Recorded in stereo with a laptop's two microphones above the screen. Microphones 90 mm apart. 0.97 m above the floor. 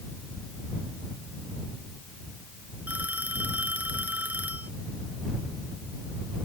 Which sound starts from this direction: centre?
A phone ringing, at 2.9 s.